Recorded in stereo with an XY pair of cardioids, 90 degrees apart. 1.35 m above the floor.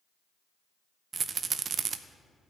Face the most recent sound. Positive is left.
turn(degrees=-55)